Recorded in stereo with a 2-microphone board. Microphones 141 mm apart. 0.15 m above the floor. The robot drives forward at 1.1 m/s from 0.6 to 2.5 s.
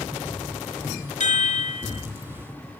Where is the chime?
55° left (ahead or behind), 0.8 m; by 2.1 s 40° left (ahead or behind), 1.0 m.